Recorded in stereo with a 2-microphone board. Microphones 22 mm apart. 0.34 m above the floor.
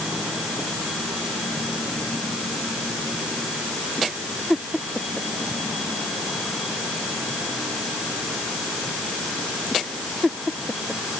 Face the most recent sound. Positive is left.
No sound to turn to.